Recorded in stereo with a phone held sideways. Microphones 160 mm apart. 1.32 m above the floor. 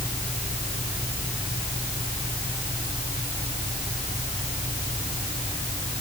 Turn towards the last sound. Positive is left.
No sound to turn to.